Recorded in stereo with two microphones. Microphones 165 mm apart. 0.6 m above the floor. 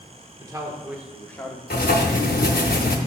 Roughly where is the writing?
Left.